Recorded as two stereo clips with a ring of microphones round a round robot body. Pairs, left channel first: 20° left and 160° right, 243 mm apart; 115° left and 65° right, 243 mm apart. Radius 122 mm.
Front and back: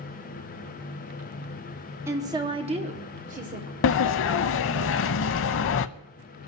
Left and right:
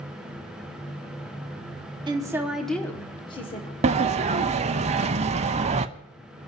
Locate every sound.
2.1 s a woman speaking: 100° right, 1.2 m; by 3.7 s 165° left, 1.6 m
3.8 s a sliding door: 5° right, 0.5 m